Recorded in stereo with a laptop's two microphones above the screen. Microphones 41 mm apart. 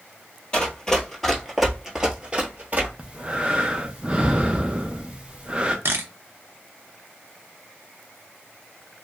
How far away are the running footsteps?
About 1.3 m.